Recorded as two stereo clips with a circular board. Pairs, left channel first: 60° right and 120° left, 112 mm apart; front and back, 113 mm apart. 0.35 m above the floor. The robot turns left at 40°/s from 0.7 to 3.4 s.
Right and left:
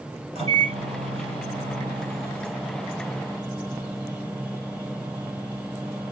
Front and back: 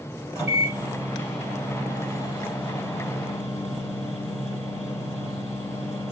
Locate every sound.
0.3 s a microwave: 120° left, 6 m; by 6.1 s 10° left, 6 m